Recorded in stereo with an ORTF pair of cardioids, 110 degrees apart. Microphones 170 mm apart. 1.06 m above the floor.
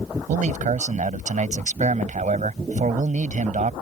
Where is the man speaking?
45° right.